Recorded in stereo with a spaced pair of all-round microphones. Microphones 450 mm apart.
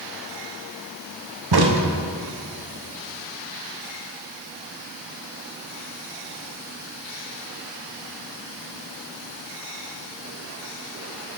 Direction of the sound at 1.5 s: 55° right (ahead or behind).